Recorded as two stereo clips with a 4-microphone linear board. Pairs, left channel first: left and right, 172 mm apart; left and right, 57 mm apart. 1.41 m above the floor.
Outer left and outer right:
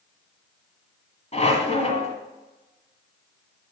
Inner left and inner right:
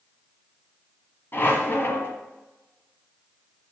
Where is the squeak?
40° left (ahead or behind), 1.6 m.